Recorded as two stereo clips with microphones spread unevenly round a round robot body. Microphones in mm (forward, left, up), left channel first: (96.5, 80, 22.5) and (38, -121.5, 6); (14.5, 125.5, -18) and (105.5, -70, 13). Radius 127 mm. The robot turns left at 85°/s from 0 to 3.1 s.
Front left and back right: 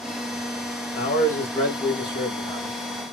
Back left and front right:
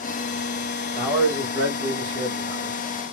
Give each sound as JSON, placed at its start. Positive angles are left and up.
{"t": 0.9, "sound": "a man speaking", "azimuth_deg": 35, "distance_m": 1.3}